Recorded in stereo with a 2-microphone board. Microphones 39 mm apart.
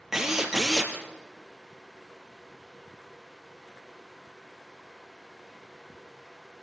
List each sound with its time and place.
0.1 s a drill: 10° right (ahead or behind), 2.5 m